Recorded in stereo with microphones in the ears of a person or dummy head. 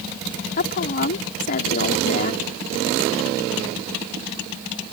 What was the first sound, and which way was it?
A woman speaking, 50° left (ahead or behind).